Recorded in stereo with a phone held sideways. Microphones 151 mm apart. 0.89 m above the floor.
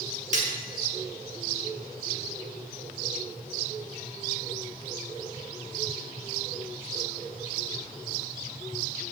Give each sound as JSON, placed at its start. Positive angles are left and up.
{"t": 0.3, "sound": "cutlery clinking", "side_deg": -55, "distance_m": 1.2}